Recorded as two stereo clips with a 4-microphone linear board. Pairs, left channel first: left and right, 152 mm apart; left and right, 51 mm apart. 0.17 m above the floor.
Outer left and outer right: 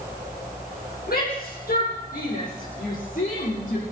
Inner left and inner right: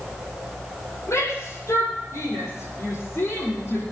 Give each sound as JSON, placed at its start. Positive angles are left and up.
{"t": 1.1, "sound": "a shout", "side_deg": 70, "distance_m": 6.0}